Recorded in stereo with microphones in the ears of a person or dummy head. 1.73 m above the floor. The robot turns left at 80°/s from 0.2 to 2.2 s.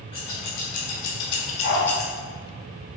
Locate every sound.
0.1 s scissors: 30° left (ahead or behind), 2.5 m; by 2.1 s centre (ahead or behind), 2.5 m
1.6 s a dog barking: 50° left (ahead or behind), 3 m; by 1.9 s 35° left (ahead or behind), 3 m